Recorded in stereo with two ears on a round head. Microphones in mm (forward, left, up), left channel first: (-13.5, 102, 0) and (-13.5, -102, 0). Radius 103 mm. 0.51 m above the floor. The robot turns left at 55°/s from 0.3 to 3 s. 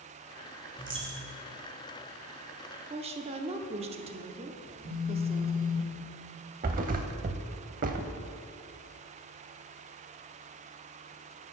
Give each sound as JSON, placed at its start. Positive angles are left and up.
{"t": 0.8, "sound": "a dropped coin", "azimuth_deg": -15, "distance_m": 1.7}
{"t": 2.9, "sound": "a woman speaking", "side_deg": -25, "distance_m": 0.7}
{"t": 4.7, "sound": "a phone buzzing", "side_deg": 55, "distance_m": 1.9}
{"t": 6.6, "sound": "a thud", "side_deg": -35, "distance_m": 0.5}